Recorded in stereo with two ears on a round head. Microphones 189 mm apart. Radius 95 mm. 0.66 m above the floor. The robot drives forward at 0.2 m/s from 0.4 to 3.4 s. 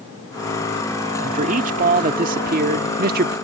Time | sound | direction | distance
1.2 | a man speaking | 40° right (ahead or behind) | ?